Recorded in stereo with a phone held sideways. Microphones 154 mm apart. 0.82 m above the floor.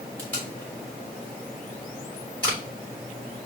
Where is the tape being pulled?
10° left (ahead or behind), 3.5 m.